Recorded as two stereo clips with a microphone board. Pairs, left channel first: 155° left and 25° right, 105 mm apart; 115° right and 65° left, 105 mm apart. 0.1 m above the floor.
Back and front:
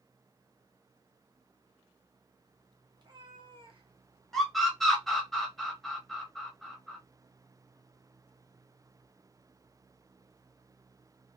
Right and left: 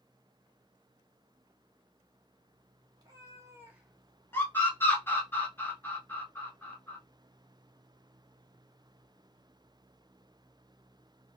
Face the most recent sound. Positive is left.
turn(degrees=-120)